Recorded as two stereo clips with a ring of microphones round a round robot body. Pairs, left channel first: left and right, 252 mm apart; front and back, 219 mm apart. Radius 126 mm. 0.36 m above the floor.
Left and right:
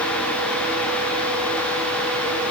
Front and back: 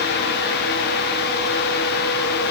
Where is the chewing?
No chewing in this recording.